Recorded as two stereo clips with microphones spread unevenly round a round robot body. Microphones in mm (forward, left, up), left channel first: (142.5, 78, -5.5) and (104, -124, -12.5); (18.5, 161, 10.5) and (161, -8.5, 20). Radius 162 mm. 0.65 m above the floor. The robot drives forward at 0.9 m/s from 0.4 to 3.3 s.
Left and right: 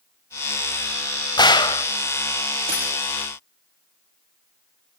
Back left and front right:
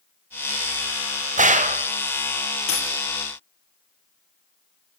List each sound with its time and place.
1.4 s a gunshot: 10° left, 2.5 m
2.7 s a dropped coin: 175° right, 4.5 m